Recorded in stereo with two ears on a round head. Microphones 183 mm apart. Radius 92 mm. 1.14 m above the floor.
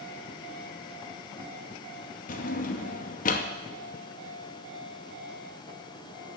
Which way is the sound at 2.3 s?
40° left (ahead or behind).